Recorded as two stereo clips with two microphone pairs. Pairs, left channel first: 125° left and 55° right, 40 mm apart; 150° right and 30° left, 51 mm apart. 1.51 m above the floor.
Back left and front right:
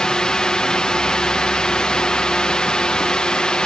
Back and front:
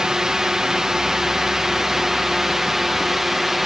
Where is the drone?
90° left; by 3.7 s 110° left.